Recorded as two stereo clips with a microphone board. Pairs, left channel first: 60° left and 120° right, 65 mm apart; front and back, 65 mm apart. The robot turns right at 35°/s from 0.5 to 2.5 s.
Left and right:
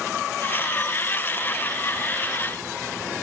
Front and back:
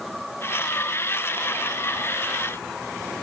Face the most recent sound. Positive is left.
No sound to turn to.